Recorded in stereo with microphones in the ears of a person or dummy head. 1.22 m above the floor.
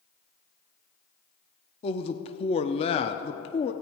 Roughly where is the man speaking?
Left.